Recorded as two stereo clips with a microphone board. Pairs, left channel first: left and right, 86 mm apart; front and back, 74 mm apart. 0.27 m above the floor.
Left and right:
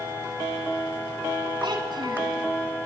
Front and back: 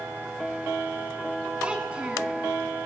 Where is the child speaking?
105° right, 1.7 m.